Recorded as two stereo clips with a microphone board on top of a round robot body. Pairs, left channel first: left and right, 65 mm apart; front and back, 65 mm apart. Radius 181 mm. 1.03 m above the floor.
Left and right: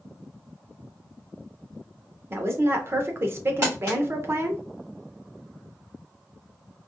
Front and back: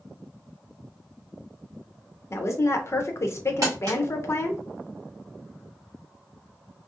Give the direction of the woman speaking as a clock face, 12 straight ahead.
1 o'clock.